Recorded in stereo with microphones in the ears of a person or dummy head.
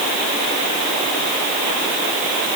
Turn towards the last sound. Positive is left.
No sound to turn to.